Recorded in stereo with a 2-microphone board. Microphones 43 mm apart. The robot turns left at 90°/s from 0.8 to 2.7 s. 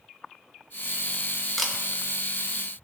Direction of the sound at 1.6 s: 5° left (ahead or behind).